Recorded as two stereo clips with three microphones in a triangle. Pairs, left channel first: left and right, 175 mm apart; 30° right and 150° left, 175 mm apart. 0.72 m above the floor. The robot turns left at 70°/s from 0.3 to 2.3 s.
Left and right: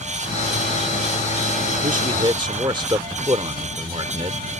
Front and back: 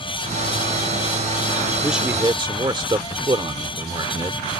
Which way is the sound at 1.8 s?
115° right.